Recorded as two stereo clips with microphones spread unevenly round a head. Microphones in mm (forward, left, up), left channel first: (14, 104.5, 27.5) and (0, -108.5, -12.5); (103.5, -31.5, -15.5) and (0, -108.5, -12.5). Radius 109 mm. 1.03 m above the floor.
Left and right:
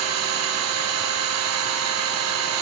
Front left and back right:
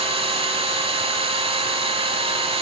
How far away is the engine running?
About 3 m.